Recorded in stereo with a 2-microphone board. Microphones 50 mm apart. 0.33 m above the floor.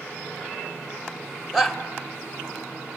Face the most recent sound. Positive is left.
turn(degrees=-5)  # may be behind; listen again after turning